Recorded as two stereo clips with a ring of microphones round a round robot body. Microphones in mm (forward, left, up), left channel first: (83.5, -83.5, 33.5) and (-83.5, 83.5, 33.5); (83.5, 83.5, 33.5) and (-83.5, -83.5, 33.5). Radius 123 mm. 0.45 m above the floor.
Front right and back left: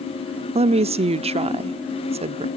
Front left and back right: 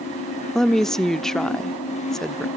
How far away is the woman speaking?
About 0.8 m.